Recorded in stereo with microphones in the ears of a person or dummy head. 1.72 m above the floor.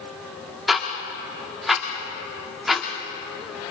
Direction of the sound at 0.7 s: Centre (ahead or behind).